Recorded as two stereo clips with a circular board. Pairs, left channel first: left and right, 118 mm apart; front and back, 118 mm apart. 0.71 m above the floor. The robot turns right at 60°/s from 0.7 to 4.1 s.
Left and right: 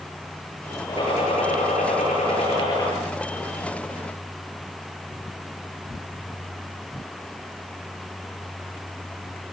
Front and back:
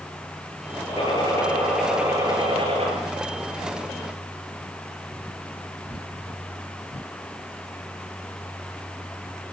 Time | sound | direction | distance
0.9 | a gunshot | 40° left | 9.5 m